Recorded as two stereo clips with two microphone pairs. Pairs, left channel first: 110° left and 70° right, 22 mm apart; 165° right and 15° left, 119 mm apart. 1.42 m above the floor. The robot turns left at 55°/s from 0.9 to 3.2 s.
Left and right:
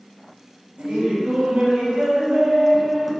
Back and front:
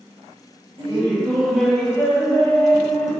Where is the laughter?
30° right, 1.1 m; by 3.1 s 150° right, 1.1 m.